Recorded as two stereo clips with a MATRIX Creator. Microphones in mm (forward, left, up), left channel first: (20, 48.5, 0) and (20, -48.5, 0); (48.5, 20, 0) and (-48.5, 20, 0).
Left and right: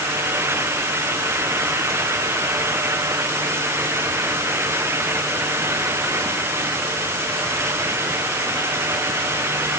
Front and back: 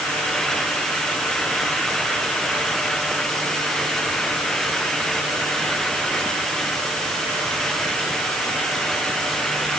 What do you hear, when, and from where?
Only background noise.